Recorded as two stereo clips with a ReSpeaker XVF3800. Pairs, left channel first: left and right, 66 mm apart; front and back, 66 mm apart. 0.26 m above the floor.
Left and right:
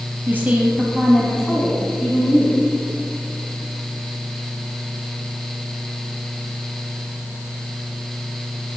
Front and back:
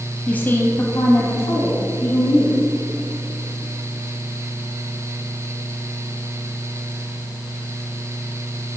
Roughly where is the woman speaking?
Ahead right.